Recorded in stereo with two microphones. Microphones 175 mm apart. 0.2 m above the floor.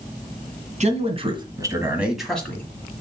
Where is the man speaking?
40° right (ahead or behind), 1.8 m; by 2.7 s 15° left (ahead or behind), 1.6 m.